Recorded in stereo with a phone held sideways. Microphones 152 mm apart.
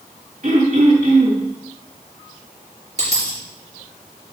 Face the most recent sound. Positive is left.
turn(degrees=-45)  # may be behind; listen again after turning